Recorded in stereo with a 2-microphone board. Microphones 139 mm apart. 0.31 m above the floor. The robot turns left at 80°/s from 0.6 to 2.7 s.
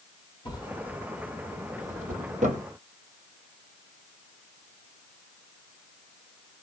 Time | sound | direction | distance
0.5 | a drawer | 35° left (ahead or behind) | 2.5 m